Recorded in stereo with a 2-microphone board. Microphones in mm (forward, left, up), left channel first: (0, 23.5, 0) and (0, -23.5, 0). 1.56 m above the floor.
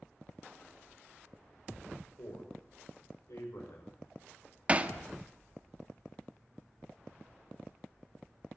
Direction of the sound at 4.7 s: 25° right (ahead or behind).